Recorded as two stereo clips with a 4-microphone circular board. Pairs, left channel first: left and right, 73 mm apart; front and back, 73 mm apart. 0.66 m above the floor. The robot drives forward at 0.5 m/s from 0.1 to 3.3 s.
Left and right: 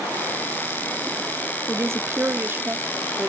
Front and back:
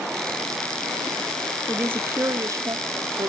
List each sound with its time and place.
1.7 s a woman speaking: 115° right, 0.7 m; by 3.3 s 155° right, 1.2 m